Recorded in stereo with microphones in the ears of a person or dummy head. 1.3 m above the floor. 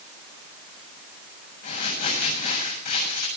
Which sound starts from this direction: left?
Crumpling, at 1.6 s.